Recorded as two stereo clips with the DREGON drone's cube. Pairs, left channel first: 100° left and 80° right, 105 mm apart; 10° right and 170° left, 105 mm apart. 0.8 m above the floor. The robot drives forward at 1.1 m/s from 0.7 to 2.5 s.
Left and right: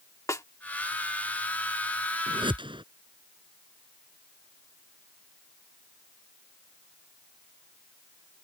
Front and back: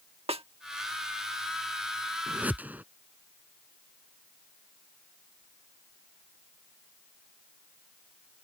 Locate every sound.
0.3 s a snare drum: 160° left
2.3 s a whoosh: 110° right; by 2.8 s 115° right